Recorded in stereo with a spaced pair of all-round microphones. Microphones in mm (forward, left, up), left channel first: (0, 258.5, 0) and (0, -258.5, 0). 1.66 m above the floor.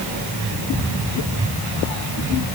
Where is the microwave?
No microwave in this recording.